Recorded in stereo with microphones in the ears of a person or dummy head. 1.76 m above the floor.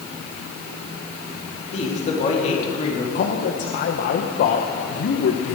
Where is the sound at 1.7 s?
35° left (ahead or behind), 3.5 m.